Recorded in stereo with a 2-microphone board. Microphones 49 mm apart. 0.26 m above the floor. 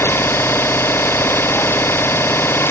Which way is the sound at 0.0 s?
55° left (ahead or behind).